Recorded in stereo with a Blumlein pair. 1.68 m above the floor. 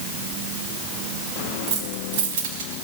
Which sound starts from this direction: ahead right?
Keys jangling, at 1.7 s.